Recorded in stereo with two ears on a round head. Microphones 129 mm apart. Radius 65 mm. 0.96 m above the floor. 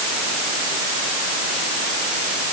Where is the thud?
No thud in this recording.